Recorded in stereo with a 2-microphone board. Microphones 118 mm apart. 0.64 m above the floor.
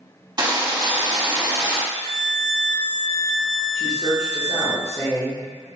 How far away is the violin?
About 0.6 m.